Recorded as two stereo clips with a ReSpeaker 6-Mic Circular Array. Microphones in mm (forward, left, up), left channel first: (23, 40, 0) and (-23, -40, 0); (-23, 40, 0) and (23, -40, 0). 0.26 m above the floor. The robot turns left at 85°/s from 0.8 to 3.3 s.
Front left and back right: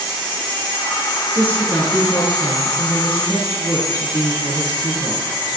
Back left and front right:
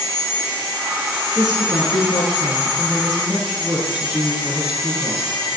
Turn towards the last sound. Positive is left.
turn(degrees=15)